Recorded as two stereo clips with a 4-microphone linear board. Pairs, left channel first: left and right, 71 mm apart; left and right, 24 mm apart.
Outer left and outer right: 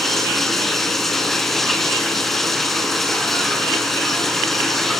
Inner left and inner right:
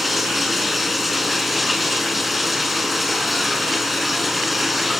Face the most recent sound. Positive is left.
turn(degrees=5)  # may be behind; listen again after turning